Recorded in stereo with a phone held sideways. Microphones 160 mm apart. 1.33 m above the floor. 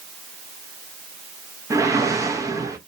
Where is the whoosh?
20° right (ahead or behind), 0.6 m.